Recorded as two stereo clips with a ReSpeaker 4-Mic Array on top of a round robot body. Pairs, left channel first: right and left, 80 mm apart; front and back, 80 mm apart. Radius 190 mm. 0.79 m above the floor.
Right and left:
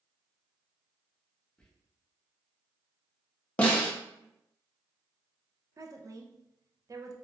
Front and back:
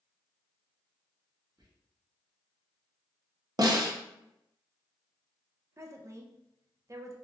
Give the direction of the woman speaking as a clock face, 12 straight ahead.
8 o'clock.